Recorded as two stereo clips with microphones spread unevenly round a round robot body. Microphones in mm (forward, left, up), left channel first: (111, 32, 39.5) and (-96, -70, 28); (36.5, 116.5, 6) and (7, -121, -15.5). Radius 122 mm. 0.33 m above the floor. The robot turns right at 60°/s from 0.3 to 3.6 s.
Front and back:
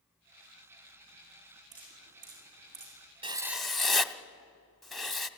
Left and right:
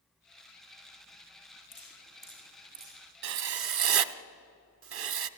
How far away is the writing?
About 0.9 m.